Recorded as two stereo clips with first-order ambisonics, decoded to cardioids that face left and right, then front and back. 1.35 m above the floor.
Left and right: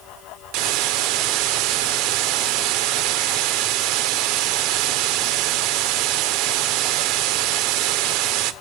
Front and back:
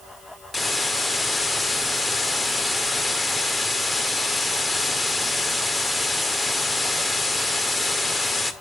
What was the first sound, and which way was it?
A hiss, 85° right.